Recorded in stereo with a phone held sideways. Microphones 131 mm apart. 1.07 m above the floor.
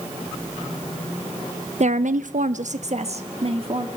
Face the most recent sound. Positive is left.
turn(degrees=-45)  # may be behind; listen again after turning